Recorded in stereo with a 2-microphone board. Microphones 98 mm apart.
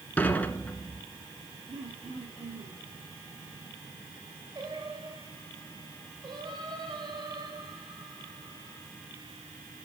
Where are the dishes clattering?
15° left (ahead or behind), 1.7 m.